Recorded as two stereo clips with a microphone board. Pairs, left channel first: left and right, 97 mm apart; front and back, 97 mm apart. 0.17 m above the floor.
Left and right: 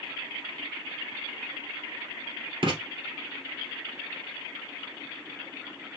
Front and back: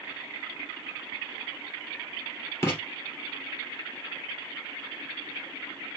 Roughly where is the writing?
Ahead right.